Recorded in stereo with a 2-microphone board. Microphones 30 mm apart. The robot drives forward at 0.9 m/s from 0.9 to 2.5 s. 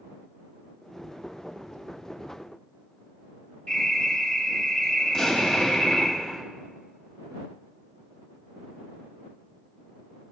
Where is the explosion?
25° left (ahead or behind), 1.7 m.